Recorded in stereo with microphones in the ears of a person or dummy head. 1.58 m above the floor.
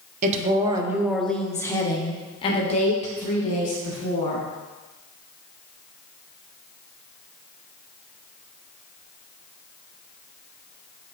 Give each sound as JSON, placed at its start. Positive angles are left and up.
{"t": 0.2, "sound": "a woman speaking", "side_deg": -40, "distance_m": 0.9}